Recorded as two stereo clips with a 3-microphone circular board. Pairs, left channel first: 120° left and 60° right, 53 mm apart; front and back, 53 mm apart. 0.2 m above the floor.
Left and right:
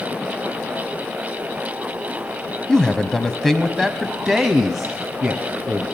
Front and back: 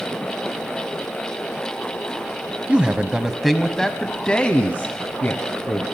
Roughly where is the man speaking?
Behind.